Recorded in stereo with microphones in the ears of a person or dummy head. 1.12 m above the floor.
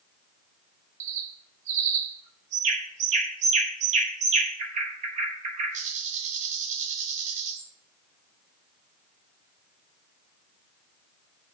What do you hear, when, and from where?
1.0 s a bird: 45° right (ahead or behind), 1.3 m